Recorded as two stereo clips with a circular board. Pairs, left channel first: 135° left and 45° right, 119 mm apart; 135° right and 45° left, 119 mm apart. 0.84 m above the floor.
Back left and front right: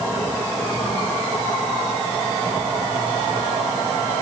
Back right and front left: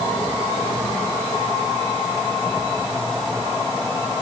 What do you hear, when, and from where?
Only background noise.